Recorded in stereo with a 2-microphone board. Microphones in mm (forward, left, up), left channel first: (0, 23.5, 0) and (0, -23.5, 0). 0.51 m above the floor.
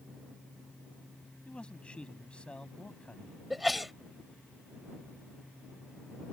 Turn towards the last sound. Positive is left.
turn(degrees=0)  # may be behind; listen again after turning